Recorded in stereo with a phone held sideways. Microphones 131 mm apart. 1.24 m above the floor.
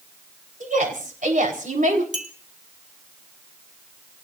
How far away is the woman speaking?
About 4 m.